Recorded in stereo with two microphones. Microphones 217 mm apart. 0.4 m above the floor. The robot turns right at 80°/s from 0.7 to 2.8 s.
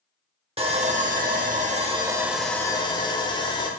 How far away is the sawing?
About 0.8 m.